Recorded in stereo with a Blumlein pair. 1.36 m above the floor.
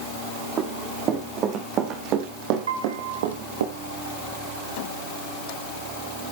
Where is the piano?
65° right, 2.5 m.